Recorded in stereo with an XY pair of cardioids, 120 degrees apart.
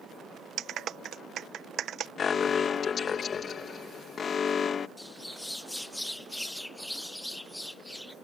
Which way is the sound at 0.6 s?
60° right.